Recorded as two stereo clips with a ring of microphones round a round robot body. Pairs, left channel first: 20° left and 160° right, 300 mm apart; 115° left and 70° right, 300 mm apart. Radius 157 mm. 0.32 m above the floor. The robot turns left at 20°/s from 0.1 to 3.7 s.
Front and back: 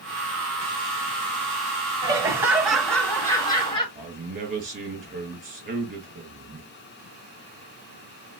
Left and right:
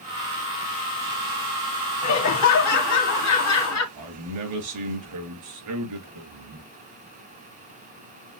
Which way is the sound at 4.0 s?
95° right.